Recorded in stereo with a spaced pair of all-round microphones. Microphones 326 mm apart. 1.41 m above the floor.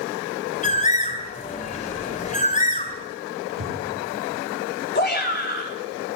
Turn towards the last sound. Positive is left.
turn(degrees=30)  # may be behind; listen again after turning